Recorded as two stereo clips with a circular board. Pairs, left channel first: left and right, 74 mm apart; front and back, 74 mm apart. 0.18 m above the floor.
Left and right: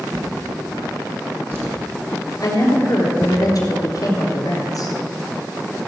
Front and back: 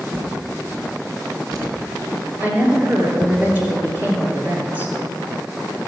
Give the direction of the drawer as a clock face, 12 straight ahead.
5 o'clock.